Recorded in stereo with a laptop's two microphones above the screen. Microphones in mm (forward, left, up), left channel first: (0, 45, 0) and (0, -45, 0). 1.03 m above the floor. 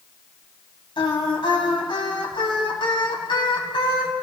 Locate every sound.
1.0 s singing: 65° left (ahead or behind), 2.5 m